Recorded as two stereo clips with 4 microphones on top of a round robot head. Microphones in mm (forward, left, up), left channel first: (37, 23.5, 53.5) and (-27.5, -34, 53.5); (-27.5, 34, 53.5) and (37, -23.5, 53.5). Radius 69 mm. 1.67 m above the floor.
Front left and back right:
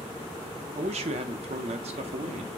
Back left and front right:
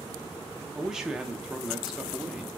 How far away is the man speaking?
About 0.6 m.